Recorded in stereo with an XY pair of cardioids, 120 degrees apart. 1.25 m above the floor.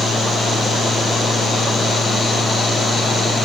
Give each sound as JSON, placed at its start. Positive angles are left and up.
{"t": 0.0, "sound": "a fan", "azimuth_deg": 20, "distance_m": 0.8}